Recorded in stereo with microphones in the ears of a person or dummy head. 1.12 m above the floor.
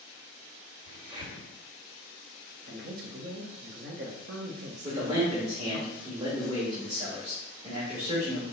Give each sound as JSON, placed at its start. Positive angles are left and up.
{"t": 0.9, "sound": "a crack", "side_deg": -25, "distance_m": 1.7}
{"t": 2.6, "sound": "a man speaking", "side_deg": -50, "distance_m": 0.8}
{"t": 4.8, "sound": "a man speaking", "side_deg": -20, "distance_m": 1.4}